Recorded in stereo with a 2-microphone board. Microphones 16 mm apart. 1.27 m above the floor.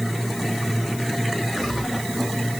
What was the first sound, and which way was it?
Only background noise.